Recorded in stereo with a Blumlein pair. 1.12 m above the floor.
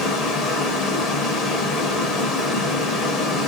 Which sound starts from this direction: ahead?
Running water, at 0.0 s.